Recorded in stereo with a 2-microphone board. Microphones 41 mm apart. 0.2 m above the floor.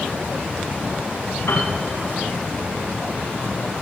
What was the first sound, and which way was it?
A piano, 70° left (ahead or behind).